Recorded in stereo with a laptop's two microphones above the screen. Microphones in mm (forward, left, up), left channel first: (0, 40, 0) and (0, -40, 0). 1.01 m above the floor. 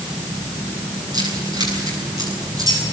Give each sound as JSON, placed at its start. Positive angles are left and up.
{"t": 1.1, "sound": "keys jangling", "side_deg": -55, "distance_m": 9.0}